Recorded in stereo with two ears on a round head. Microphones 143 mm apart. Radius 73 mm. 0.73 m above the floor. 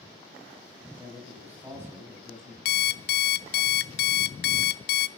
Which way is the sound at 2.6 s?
70° left (ahead or behind).